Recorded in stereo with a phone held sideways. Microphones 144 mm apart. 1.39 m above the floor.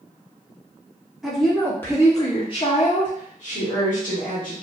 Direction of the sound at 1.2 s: Centre (ahead or behind).